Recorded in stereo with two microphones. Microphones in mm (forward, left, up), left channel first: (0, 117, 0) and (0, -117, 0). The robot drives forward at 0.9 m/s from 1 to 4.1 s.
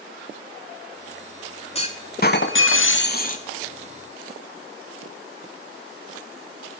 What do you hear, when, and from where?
1.8 s a clunk: 25° left (ahead or behind), 1.0 m; by 3.5 s 30° left (ahead or behind), 0.8 m